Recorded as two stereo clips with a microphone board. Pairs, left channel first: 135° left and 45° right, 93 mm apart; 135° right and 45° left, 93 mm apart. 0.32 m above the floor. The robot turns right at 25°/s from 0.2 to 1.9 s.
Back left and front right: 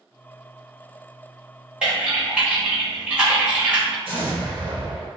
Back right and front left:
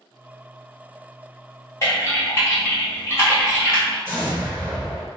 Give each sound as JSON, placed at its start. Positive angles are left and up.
{"t": 1.8, "sound": "typing on a keyboard", "azimuth_deg": -115, "distance_m": 1.0}
{"t": 4.0, "sound": "an explosion", "azimuth_deg": -25, "distance_m": 1.3}